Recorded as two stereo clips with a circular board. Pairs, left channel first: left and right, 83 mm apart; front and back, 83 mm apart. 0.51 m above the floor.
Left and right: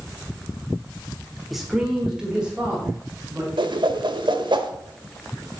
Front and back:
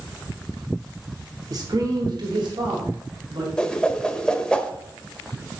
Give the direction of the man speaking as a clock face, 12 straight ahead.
6 o'clock.